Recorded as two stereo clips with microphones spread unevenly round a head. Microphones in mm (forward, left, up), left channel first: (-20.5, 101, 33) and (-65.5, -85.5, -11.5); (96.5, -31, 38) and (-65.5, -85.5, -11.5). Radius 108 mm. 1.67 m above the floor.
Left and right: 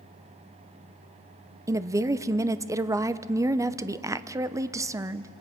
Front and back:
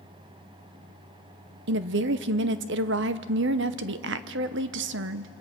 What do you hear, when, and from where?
1.7 s a woman speaking: 175° left, 0.7 m